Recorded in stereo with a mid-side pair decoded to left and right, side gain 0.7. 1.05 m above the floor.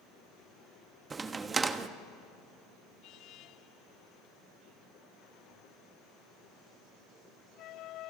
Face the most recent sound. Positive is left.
turn(degrees=-25)